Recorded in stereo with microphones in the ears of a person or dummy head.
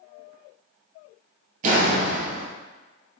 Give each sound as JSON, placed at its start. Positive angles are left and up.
{"t": 1.6, "sound": "a door slam", "side_deg": -45, "distance_m": 1.1}